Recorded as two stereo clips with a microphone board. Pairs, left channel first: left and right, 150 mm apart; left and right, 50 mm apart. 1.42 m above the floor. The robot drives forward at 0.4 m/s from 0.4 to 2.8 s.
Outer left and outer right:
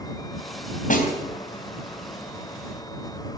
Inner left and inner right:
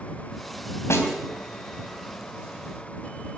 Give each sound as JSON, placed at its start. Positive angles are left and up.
{"t": 0.9, "sound": "a snare drum", "side_deg": 60, "distance_m": 3.0}